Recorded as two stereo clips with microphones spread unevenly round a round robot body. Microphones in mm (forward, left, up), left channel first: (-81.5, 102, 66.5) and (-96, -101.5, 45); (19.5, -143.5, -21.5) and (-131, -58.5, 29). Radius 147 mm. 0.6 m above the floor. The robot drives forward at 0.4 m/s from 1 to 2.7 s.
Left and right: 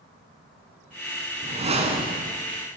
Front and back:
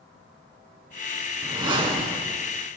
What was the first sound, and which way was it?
A whoosh, 150° right.